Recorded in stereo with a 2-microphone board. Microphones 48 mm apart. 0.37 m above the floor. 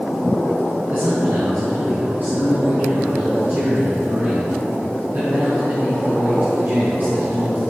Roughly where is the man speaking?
Right.